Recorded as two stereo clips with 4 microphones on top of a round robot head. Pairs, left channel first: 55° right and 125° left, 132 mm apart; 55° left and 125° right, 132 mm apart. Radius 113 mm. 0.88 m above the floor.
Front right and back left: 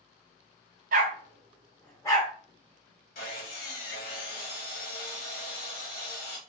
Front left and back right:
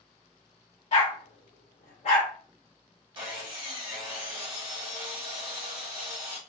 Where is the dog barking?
100° left, 0.8 m; by 2.3 s 5° left, 1.1 m.